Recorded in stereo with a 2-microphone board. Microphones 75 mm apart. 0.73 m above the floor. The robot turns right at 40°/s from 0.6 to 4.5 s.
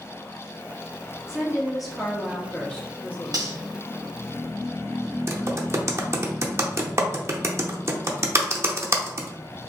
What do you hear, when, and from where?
1.3 s a woman speaking: 10° right (ahead or behind), 1.1 m; by 3.7 s 25° left (ahead or behind), 1.1 m
3.3 s cutlery clinking: 65° right (ahead or behind), 1.8 m; by 3.5 s 55° right (ahead or behind), 1.8 m
5.3 s typing on a keyboard: 40° right (ahead or behind), 0.5 m